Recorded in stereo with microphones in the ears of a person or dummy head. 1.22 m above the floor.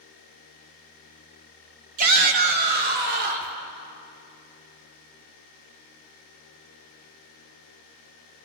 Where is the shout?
40° right (ahead or behind), 2 m; by 3.5 s 55° right (ahead or behind), 4.5 m.